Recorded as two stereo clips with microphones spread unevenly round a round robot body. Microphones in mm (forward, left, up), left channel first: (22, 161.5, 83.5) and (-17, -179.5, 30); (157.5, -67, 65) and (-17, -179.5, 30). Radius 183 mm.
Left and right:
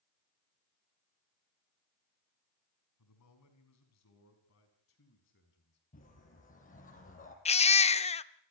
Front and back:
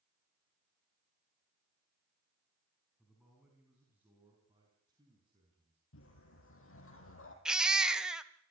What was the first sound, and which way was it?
A man speaking, 125° left.